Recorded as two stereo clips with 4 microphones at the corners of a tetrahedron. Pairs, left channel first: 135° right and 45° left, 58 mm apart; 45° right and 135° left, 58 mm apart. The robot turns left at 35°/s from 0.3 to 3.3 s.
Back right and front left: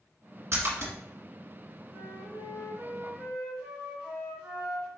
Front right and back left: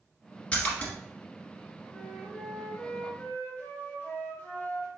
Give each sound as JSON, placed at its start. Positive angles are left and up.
{"t": 0.5, "sound": "a splash", "azimuth_deg": 25, "distance_m": 1.6}
{"t": 1.9, "sound": "a flute", "azimuth_deg": 35, "distance_m": 1.9}